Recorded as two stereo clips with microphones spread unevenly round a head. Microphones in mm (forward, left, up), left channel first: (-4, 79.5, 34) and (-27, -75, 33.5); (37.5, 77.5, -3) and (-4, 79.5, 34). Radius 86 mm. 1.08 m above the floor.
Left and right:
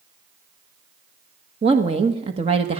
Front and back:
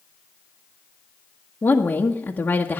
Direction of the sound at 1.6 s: 40° right.